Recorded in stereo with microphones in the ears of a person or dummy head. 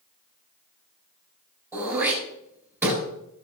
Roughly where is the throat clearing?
Centre.